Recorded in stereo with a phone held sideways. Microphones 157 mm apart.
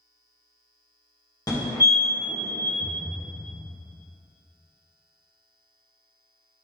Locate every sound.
1.5 s a fire alarm: 25° left (ahead or behind), 1.6 m
2.8 s a thud: 45° right (ahead or behind), 1.2 m